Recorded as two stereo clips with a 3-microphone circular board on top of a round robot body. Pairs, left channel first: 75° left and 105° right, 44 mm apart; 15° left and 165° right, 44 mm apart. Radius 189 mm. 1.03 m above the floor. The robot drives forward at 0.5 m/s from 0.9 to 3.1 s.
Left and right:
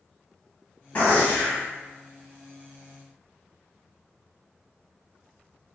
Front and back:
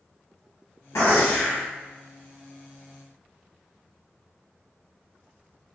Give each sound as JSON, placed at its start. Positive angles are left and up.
{"t": 0.9, "sound": "a gunshot", "azimuth_deg": 20, "distance_m": 1.6}